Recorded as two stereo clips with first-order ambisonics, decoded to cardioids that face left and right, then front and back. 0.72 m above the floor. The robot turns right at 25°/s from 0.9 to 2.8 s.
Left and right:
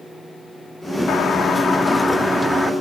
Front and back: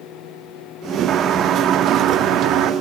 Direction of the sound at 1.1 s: 140° left.